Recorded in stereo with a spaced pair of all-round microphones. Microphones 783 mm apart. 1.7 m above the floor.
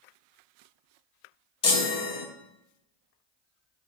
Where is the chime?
35° left (ahead or behind), 0.6 m.